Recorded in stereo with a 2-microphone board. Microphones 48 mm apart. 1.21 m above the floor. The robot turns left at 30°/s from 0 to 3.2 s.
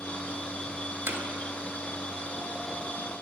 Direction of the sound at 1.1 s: 50° right (ahead or behind).